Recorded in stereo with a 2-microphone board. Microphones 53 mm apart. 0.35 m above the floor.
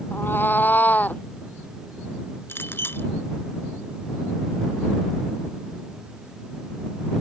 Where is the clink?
45° left (ahead or behind).